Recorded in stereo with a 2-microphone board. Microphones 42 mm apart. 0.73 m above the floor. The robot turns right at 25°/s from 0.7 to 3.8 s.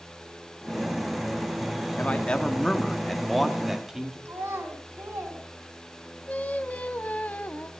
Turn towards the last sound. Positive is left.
turn(degrees=35)  # may be behind; listen again after turning